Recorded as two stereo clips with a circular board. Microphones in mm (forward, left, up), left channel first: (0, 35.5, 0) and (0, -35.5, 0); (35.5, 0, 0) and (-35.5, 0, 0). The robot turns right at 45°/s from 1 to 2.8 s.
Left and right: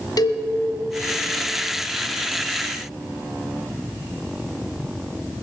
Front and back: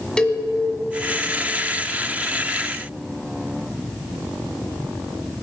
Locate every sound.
0.2 s a cowbell: 80° left, 1.4 m